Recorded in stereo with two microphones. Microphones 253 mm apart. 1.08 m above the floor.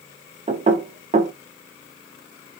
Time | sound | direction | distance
0.5 | knocking | 25° right (ahead or behind) | 0.5 m